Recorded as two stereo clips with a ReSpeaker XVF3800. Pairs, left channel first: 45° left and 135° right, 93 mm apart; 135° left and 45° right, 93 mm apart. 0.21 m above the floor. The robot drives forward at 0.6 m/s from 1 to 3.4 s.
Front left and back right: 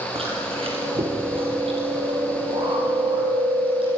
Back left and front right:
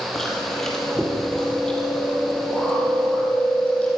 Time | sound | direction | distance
0.1 | chewing | 140° right | 5 m